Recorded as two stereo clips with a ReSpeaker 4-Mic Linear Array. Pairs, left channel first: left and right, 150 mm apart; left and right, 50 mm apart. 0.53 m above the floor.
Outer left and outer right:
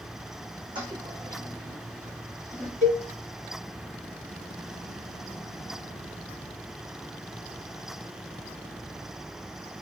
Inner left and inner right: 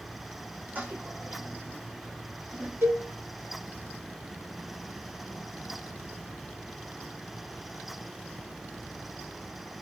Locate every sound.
0.8 s a toilet flushing: 35° right (ahead or behind), 5 m
2.8 s a cowbell: 60° right (ahead or behind), 3 m